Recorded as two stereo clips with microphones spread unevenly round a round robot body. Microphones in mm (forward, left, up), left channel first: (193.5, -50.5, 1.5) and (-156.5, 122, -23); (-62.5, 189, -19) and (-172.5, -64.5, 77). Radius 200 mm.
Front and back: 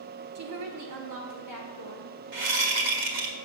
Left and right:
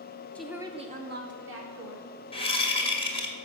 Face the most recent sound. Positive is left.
turn(degrees=130)